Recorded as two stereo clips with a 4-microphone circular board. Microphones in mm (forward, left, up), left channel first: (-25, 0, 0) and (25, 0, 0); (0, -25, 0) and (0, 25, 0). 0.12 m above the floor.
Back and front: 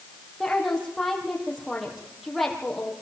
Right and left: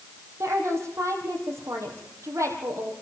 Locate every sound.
0.4 s a woman speaking: 90° left, 4 m